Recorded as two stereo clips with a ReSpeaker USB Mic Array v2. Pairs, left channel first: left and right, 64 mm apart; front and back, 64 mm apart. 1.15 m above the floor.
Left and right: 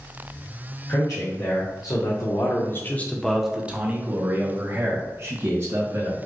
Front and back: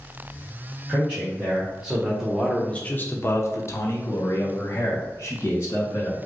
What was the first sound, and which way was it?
A man speaking, 110° left.